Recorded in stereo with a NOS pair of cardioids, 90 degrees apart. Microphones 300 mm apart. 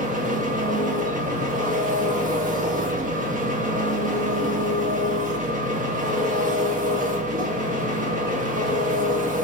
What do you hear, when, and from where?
0.0 s an engine running: 25° right, 1.1 m